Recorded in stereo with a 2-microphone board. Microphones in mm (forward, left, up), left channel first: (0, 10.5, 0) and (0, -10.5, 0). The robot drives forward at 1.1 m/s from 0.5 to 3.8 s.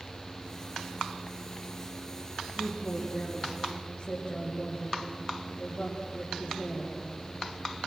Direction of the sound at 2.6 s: 60° left (ahead or behind).